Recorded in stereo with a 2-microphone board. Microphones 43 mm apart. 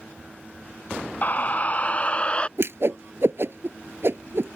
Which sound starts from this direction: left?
A scream, at 1.2 s.